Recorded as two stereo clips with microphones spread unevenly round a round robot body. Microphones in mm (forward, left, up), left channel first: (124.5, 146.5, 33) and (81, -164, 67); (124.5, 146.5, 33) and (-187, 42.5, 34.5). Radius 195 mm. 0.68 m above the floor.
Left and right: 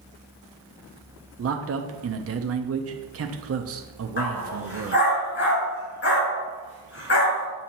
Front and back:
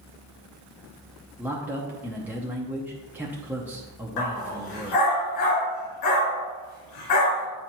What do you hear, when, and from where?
1.4 s a man speaking: 80° right, 0.7 m
4.2 s a dog barking: 25° left, 2.5 m